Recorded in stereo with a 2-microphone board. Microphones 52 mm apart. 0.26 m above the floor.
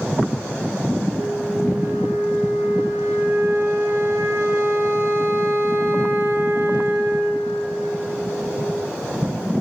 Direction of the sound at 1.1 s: 65° right (ahead or behind).